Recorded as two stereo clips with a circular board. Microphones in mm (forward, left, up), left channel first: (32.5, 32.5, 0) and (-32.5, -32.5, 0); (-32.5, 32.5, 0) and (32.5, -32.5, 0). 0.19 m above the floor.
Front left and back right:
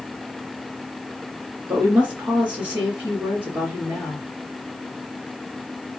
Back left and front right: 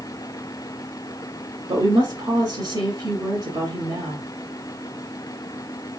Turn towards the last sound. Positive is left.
turn(degrees=-70)